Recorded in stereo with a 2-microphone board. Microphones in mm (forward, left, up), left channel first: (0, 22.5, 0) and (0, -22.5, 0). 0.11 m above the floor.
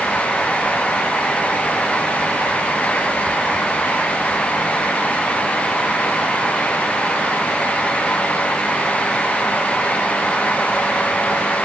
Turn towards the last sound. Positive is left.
No sound to turn to.